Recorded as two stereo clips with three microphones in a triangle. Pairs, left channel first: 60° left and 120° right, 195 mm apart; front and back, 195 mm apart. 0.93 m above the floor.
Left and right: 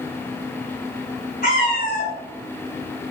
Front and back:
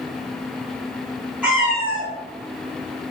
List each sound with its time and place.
1.4 s a cat meowing: 95° left, 1.6 m